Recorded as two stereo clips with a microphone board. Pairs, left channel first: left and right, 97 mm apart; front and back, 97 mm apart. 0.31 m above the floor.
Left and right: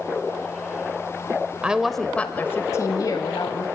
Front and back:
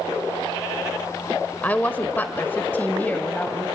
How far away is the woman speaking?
About 0.9 m.